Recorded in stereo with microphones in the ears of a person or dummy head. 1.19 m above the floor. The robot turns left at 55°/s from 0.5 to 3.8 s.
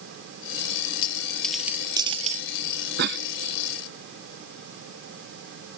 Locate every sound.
1.0 s a dropped coin: 25° left (ahead or behind); by 2.5 s 50° right (ahead or behind)
3.0 s a cough: 55° right (ahead or behind); by 3.2 s 50° right (ahead or behind)